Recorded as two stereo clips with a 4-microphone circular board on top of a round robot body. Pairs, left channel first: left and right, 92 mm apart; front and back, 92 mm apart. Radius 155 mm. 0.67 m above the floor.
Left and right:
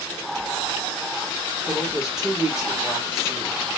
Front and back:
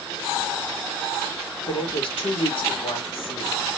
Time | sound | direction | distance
1.7 | a woman speaking | 5° right | 1.6 m